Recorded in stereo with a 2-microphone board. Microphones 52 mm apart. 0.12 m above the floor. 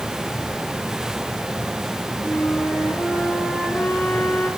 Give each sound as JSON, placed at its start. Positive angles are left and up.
{"t": 2.2, "sound": "a flute", "side_deg": 35, "distance_m": 8.0}